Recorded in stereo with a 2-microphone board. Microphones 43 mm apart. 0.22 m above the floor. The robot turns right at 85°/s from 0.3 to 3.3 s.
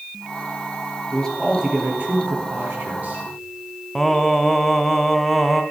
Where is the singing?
10° left (ahead or behind), 0.8 m.